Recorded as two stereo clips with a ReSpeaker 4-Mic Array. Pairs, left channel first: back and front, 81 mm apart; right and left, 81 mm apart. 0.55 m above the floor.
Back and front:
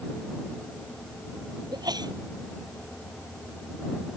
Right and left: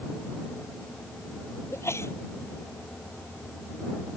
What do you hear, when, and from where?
1.7 s a sneeze: 35° right